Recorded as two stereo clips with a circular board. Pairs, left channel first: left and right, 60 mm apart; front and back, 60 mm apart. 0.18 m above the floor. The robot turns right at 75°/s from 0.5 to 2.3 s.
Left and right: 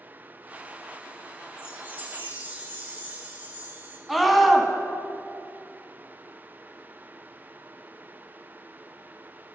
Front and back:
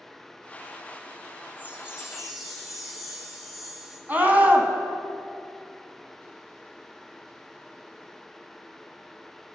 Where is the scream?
170° right, 1.1 m.